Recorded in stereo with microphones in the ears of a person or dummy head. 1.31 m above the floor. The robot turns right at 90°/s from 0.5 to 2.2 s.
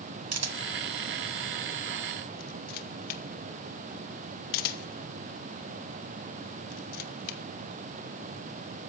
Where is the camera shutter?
75° right (ahead or behind), 1.6 m; by 7.4 s 50° left (ahead or behind), 1.6 m.